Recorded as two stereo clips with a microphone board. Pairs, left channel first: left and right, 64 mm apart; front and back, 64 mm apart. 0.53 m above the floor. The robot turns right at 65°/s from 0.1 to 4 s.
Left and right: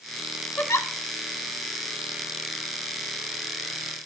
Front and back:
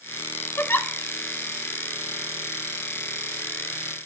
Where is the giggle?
40° left, 0.9 m; by 0.9 s 60° left, 0.9 m.